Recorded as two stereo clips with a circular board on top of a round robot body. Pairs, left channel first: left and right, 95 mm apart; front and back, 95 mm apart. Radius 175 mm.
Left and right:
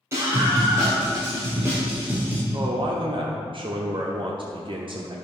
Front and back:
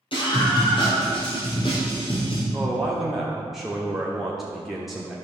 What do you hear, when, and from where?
0.1 s a scream: 25° right, 2.5 m; by 2.4 s 20° right, 1.7 m
2.5 s a man speaking: 95° right, 1.3 m